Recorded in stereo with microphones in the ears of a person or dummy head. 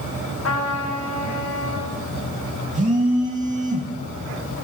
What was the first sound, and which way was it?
A trumpet, 75° left (ahead or behind).